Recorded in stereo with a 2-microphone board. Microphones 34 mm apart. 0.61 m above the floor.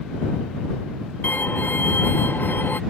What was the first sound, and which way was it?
A violin, 70° left (ahead or behind).